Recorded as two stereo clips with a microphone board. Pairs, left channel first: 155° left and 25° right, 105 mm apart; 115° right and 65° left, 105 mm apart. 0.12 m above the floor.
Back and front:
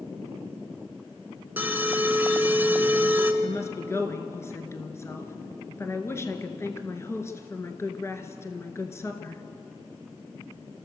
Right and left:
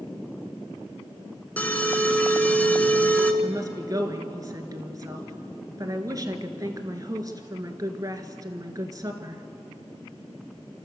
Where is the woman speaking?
105° left, 2 m.